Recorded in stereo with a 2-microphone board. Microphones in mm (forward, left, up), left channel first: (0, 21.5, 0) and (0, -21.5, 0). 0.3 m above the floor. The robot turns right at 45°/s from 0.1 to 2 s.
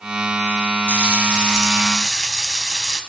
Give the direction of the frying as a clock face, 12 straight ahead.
2 o'clock.